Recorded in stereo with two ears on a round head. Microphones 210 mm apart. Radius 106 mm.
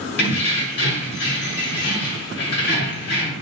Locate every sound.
0.2 s keys jangling: 50° left (ahead or behind), 1.6 m